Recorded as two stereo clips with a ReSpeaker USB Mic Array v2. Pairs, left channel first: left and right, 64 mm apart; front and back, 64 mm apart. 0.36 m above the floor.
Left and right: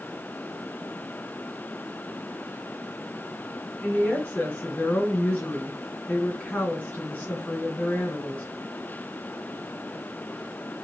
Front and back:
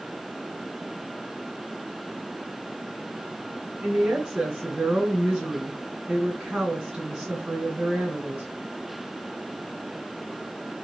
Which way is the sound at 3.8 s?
120° left.